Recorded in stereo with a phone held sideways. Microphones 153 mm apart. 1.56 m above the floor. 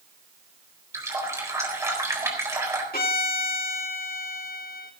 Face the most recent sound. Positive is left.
turn(degrees=80)